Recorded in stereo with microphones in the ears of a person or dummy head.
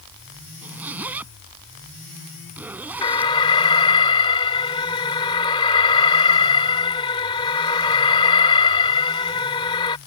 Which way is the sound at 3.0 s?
25° left (ahead or behind).